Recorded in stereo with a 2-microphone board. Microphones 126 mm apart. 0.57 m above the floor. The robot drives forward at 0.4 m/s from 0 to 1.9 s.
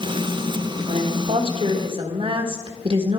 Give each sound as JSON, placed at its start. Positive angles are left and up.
{"t": 0.9, "sound": "a woman speaking", "side_deg": -50, "distance_m": 1.4}